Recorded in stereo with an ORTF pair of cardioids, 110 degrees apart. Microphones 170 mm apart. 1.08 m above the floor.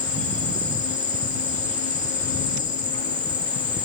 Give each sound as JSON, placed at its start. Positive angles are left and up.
{"t": 0.0, "sound": "an insect", "azimuth_deg": 45, "distance_m": 1.7}